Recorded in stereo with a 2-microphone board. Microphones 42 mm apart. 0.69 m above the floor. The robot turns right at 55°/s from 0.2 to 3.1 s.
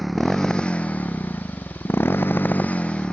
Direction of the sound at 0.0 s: Straight ahead.